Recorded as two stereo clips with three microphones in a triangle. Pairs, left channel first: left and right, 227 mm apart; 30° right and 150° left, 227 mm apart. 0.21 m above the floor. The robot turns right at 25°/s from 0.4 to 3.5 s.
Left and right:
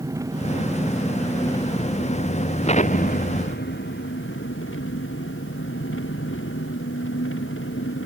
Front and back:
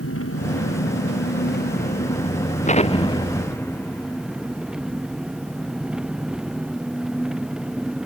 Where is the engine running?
15° right; by 8.1 s 65° left.